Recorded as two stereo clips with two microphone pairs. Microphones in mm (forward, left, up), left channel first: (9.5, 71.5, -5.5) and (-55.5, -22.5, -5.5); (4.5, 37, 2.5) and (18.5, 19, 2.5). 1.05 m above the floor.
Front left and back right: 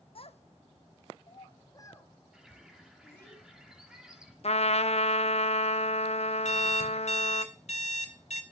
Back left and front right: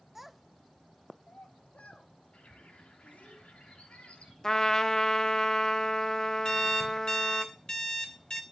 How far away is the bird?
About 3 m.